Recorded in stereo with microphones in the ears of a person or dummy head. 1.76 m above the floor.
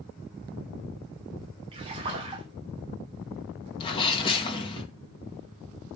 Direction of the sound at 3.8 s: 25° left (ahead or behind).